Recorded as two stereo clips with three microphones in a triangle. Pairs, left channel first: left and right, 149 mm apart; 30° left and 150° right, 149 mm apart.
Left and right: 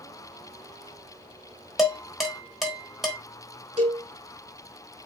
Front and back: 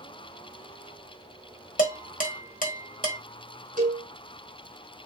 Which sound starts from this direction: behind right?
A cowbell, at 3.8 s.